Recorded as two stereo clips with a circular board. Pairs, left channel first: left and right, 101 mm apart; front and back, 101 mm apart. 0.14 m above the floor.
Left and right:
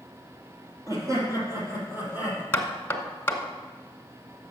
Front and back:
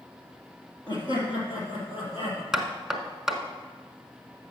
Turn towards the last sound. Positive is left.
turn(degrees=105)